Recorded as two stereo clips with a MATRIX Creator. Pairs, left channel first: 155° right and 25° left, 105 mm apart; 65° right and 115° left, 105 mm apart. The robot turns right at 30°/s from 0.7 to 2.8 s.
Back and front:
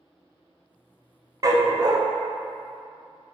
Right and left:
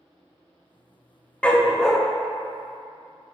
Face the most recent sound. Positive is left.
turn(degrees=45)